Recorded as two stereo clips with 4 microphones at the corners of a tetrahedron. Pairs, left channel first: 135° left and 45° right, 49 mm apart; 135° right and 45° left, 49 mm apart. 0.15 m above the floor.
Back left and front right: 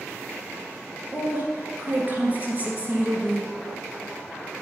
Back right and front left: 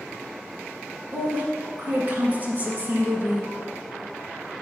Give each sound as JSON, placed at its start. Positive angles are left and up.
{"t": 1.1, "sound": "a woman speaking", "azimuth_deg": 0, "distance_m": 1.7}